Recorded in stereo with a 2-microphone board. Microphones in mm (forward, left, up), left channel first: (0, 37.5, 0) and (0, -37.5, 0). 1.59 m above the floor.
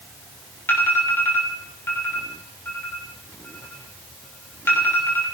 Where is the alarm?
30° left (ahead or behind), 6 m.